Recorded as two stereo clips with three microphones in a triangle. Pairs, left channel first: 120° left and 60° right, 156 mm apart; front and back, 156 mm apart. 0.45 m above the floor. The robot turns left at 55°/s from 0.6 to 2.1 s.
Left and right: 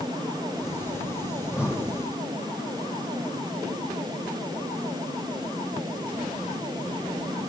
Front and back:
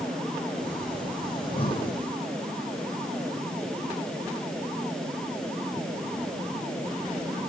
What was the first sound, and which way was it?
Breathing, 35° left.